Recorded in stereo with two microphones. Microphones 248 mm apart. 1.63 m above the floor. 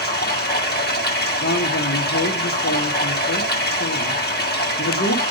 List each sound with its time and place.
0.0 s running water: 40° left (ahead or behind), 1.4 m
1.4 s a man speaking: 70° left (ahead or behind), 1.5 m